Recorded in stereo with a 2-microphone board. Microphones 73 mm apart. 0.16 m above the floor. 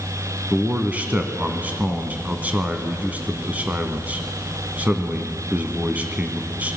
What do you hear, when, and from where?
0.5 s a man speaking: 20° right (ahead or behind), 1.6 m